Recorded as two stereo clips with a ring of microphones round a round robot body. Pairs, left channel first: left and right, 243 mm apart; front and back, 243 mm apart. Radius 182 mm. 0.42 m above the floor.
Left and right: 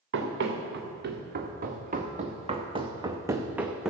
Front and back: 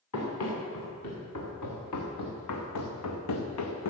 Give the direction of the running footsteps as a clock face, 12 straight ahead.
2 o'clock.